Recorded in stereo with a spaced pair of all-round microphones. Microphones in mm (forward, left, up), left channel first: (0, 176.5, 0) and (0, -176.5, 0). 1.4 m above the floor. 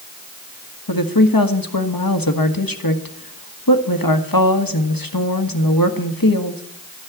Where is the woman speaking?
70° left (ahead or behind), 1.5 m.